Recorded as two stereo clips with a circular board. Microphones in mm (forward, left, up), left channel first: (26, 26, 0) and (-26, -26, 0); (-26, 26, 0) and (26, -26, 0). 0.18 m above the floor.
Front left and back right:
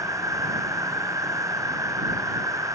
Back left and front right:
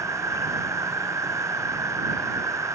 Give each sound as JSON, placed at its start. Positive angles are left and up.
{"t": 0.0, "sound": "an insect", "azimuth_deg": -90}